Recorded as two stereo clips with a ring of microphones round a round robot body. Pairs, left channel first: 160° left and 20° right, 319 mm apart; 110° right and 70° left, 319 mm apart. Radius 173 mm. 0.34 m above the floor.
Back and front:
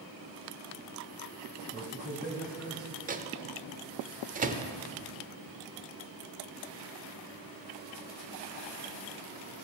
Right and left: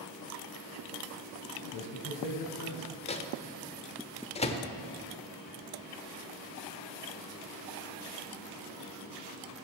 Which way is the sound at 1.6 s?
100° right.